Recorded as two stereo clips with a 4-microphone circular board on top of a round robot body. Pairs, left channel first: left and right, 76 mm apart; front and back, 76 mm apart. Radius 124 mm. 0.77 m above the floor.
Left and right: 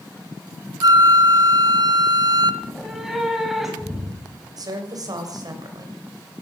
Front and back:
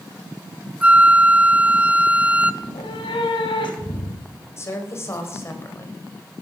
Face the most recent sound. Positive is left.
turn(degrees=-55)